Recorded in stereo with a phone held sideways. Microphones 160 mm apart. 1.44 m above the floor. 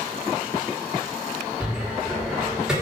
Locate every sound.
1.6 s a cupboard door: 5° right (ahead or behind), 1.1 m